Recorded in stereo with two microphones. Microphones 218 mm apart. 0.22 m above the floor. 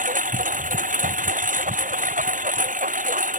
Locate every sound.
0.0 s a lawn mower: 35° right (ahead or behind)